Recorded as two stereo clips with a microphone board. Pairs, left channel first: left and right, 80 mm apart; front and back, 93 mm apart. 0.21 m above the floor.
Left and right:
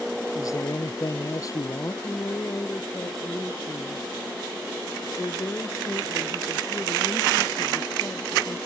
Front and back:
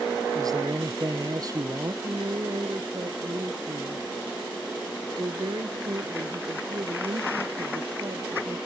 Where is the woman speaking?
140° left.